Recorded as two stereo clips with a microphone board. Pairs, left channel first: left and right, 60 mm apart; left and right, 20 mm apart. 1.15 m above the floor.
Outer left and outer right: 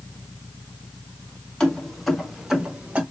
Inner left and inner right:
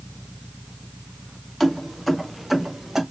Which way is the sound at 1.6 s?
10° left (ahead or behind).